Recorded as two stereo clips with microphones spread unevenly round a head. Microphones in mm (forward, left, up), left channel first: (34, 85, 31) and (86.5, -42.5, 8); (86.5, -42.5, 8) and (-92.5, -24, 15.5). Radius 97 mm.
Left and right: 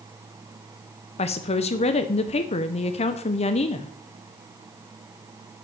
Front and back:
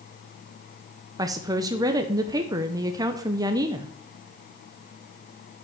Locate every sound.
1.2 s a woman speaking: 115° left, 0.6 m